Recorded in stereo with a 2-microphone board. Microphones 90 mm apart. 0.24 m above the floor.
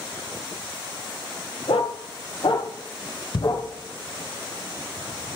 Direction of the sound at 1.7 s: 75° left (ahead or behind).